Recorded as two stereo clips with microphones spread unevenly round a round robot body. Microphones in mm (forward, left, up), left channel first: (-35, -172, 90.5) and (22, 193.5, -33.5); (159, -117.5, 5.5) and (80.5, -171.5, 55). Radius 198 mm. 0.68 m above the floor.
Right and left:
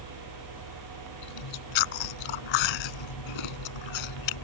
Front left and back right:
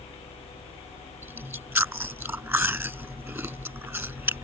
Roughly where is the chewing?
Right.